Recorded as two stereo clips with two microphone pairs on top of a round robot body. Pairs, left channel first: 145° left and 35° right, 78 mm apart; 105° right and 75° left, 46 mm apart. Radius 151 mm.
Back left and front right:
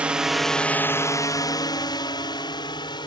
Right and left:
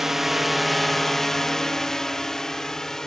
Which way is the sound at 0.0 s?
10° left.